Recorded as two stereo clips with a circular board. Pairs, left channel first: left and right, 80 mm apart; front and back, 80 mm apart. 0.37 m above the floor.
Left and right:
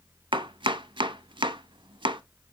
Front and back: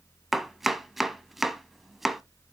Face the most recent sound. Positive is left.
turn(degrees=-90)